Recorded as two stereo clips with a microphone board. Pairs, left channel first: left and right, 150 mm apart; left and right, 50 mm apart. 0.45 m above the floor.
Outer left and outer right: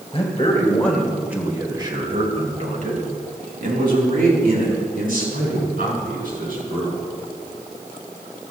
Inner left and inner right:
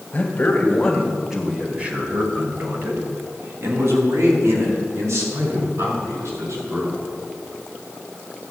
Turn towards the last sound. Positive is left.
turn(degrees=-80)